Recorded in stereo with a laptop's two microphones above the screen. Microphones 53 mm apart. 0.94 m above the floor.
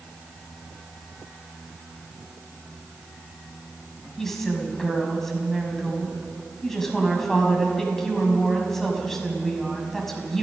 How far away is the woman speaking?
About 6 m.